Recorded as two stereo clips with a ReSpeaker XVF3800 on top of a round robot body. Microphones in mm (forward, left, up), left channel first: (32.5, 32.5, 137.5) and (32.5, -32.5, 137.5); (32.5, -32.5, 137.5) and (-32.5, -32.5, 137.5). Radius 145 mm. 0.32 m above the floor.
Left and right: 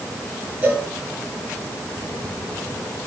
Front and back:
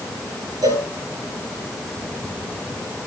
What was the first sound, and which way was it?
A cowbell, 160° right.